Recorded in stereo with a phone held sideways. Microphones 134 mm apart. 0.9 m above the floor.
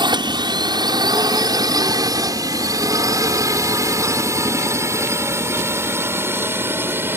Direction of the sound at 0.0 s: 35° right (ahead or behind).